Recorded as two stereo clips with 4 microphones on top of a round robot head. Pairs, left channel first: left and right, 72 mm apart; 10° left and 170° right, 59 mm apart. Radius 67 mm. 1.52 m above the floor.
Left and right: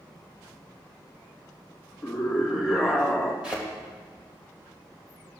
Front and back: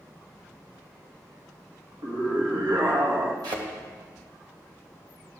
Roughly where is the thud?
Behind.